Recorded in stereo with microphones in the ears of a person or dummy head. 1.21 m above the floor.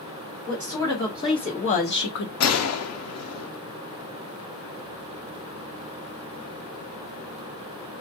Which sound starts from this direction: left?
A gunshot, at 2.4 s.